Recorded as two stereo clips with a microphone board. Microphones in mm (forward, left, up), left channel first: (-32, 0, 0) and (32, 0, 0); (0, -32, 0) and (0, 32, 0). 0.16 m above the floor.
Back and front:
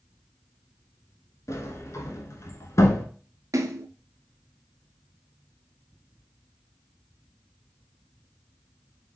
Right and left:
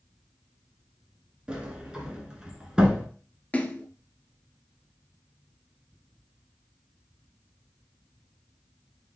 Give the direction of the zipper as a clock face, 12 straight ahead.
I don't hear a zipper.